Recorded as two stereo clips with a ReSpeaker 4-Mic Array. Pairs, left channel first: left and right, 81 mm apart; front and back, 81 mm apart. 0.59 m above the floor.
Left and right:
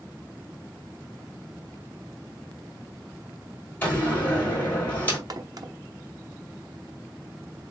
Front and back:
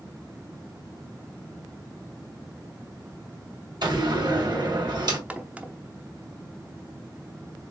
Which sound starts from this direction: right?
A crack, at 5.3 s.